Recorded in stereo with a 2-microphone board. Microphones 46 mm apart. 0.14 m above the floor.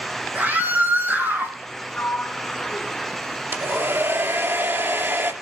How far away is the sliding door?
About 2 m.